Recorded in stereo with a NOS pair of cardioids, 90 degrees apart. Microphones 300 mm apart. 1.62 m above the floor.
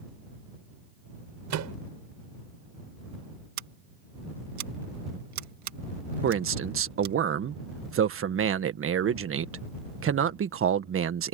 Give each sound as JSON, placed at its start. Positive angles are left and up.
{"t": 1.5, "sound": "a microwave", "azimuth_deg": -70}
{"t": 3.6, "sound": "scissors", "azimuth_deg": -70}
{"t": 6.2, "sound": "a man speaking", "azimuth_deg": -45}